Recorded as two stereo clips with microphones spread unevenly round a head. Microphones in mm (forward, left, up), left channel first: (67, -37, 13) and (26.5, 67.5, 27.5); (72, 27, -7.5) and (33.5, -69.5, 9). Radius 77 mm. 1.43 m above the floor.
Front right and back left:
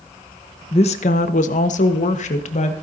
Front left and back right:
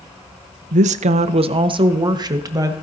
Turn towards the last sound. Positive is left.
turn(degrees=-55)